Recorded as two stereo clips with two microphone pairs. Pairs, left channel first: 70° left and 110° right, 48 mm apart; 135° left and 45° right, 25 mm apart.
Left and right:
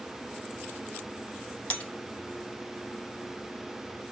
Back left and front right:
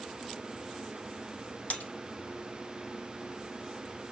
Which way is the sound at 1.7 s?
130° left.